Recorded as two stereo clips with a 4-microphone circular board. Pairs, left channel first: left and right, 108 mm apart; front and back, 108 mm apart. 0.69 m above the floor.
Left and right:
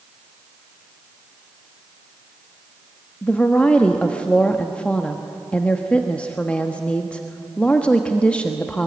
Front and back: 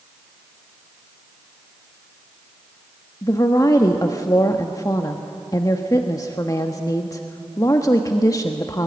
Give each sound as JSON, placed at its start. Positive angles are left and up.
{"t": 3.2, "sound": "a woman speaking", "azimuth_deg": 20, "distance_m": 1.2}